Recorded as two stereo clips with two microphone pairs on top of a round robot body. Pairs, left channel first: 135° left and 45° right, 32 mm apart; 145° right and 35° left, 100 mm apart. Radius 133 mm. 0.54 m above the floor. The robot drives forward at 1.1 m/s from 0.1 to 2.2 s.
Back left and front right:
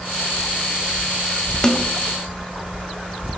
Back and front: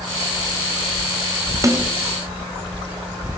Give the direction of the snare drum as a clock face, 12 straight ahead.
9 o'clock.